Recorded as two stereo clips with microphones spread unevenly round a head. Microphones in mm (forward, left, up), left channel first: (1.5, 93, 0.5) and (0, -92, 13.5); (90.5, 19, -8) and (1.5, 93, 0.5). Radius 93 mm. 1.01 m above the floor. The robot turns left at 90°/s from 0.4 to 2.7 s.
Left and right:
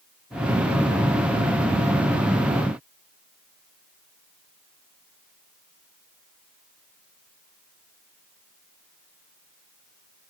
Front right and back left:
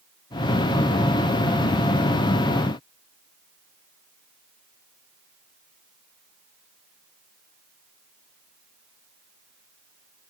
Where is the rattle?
I don't hear a rattle.